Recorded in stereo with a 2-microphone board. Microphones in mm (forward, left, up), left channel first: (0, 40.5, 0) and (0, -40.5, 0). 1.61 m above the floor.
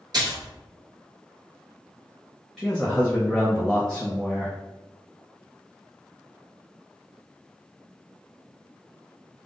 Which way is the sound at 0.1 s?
55° right (ahead or behind).